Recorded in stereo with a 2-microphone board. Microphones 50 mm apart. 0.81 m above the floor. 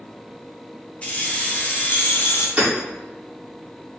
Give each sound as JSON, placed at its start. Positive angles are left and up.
{"t": 1.0, "sound": "keys jangling", "side_deg": 30, "distance_m": 1.3}
{"t": 2.6, "sound": "hammering", "side_deg": -30, "distance_m": 2.0}